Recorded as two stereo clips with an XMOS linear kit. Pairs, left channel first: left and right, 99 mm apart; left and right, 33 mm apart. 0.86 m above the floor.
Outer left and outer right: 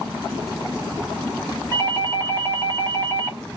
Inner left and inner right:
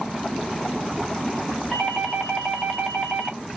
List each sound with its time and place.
1.7 s a doorbell: 25° left (ahead or behind), 1.4 m